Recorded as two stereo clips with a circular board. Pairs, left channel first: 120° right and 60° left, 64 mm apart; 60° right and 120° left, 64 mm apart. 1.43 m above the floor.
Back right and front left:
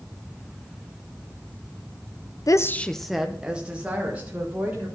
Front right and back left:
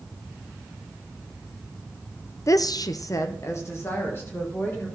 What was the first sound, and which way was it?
A woman speaking, 95° right.